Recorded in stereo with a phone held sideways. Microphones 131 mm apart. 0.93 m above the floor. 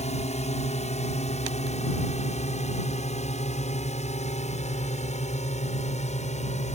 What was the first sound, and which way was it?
A drone, 60° left (ahead or behind).